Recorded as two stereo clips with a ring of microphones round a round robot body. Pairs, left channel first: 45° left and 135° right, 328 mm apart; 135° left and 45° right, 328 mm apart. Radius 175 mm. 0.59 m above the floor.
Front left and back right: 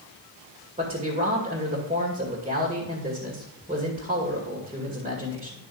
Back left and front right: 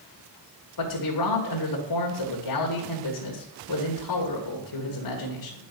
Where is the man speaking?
155° left, 2.0 m.